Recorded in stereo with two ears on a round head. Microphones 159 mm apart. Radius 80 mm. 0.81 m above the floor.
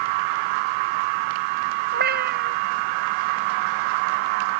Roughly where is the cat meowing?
Right.